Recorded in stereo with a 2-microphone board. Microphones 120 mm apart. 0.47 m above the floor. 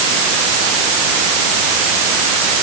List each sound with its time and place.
Only background noise.